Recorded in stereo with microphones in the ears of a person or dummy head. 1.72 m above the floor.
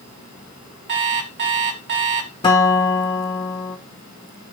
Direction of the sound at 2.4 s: 25° left (ahead or behind).